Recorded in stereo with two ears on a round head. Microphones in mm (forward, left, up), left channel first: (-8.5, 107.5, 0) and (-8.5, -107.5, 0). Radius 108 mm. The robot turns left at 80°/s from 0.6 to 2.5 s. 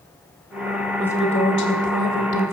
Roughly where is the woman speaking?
Behind.